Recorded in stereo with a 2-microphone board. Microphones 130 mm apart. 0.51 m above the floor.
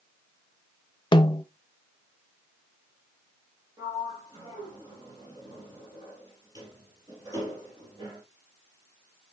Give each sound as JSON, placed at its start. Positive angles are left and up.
{"t": 1.1, "sound": "a snare drum", "side_deg": 35, "distance_m": 0.6}
{"t": 3.8, "sound": "a sliding door", "side_deg": -35, "distance_m": 3.5}